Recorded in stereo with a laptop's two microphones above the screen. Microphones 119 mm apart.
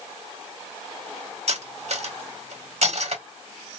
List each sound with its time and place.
1.5 s cutlery clinking: 60° right (ahead or behind), 0.9 m